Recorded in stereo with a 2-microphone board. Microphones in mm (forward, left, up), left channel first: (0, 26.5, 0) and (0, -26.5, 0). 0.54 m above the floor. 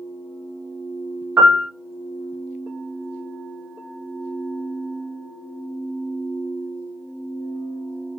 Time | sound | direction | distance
1.4 | a piano | 40° right (ahead or behind) | 0.8 m